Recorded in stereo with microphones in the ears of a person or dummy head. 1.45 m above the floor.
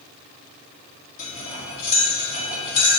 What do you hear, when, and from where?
1.2 s cutlery clinking: 45° left (ahead or behind), 1.8 m